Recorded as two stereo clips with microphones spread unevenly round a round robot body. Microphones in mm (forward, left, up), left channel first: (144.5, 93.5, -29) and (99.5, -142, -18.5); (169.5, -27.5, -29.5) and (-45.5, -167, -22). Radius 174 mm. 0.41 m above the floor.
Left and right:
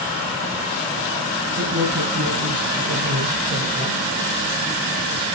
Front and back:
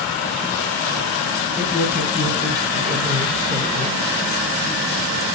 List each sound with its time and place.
1.6 s a man speaking: 60° right, 3 m; by 4.1 s 85° right, 3.5 m